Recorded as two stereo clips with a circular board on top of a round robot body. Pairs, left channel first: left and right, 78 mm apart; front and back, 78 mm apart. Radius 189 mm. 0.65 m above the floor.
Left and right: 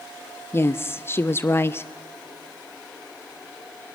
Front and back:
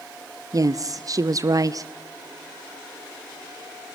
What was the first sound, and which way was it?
A woman speaking, 145° left.